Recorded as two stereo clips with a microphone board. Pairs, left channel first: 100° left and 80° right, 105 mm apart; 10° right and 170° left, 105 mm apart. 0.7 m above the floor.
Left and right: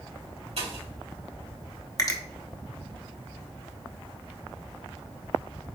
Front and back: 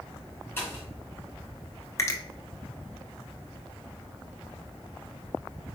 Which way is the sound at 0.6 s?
80° right.